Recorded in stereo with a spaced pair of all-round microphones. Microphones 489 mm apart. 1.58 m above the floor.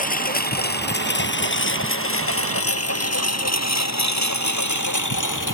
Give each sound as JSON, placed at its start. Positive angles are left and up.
{"t": 0.0, "sound": "a lawn mower", "side_deg": 15}